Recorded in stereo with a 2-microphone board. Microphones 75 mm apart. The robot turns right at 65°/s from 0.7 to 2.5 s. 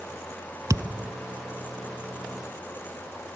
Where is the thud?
50° right (ahead or behind); by 1.1 s 45° right (ahead or behind).